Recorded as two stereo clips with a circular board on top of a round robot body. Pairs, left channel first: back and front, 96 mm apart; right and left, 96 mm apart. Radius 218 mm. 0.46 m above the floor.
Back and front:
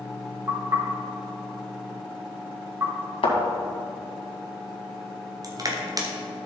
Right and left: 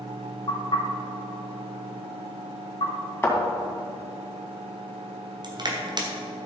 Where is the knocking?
60° right, 3 m.